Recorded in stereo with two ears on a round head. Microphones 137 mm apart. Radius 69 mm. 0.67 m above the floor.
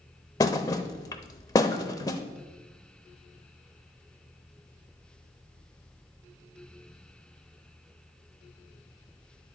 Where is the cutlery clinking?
I don't hear cutlery clinking.